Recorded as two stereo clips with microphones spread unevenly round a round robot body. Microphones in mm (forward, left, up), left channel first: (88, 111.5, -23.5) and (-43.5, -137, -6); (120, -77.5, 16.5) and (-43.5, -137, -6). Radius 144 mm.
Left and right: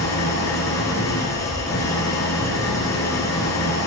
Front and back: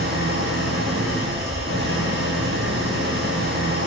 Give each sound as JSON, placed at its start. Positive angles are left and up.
{"t": 0.0, "sound": "an engine running", "azimuth_deg": 140, "distance_m": 8.0}